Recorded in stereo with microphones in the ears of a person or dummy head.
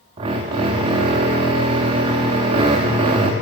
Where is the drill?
20° right (ahead or behind), 0.9 m.